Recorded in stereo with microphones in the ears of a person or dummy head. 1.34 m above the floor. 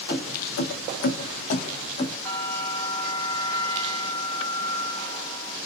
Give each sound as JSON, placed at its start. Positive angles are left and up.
{"t": 0.1, "sound": "keys jangling", "side_deg": 50, "distance_m": 0.9}
{"t": 2.2, "sound": "a bell", "side_deg": 15, "distance_m": 1.0}